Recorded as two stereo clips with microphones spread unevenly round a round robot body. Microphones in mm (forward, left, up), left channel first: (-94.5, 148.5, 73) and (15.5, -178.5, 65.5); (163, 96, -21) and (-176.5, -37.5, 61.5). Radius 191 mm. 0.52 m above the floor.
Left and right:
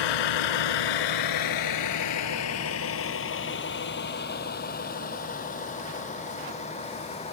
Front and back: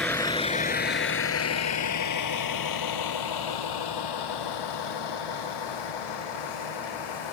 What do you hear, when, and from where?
0.0 s a vehicle: 110° left; by 7.3 s 35° left